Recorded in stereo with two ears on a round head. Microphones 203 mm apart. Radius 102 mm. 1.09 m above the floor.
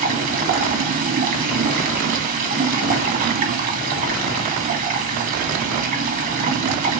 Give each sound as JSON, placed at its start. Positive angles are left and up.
{"t": 0.0, "sound": "running water", "side_deg": -35, "distance_m": 1.7}